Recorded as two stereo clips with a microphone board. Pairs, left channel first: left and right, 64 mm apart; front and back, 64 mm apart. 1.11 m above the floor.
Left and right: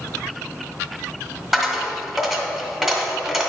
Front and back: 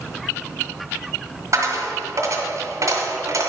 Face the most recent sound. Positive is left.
turn(degrees=-170)